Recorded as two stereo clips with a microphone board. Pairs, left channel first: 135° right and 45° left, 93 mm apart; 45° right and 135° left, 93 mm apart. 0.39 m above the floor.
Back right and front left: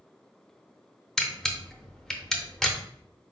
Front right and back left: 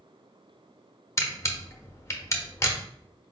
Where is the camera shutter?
55° right, 0.6 m.